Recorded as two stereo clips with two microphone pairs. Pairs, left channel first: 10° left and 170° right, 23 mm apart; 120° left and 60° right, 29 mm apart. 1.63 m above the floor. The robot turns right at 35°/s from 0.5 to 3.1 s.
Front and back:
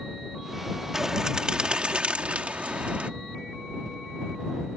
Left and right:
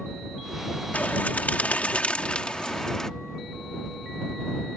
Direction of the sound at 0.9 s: 120° left.